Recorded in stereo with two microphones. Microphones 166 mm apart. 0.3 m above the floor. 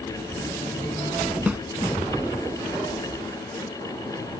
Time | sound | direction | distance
1.5 | a snare drum | 10° right (ahead or behind) | ?